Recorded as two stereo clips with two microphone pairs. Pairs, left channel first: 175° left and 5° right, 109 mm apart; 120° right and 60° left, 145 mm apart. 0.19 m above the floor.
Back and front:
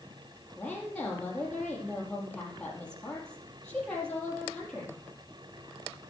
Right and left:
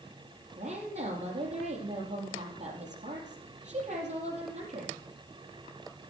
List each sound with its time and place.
0.6 s a woman speaking: 95° left, 4.5 m